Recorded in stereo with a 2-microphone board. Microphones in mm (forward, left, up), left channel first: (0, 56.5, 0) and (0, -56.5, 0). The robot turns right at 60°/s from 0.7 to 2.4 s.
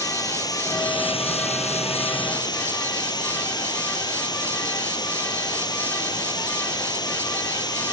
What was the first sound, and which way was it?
Running water, 35° left.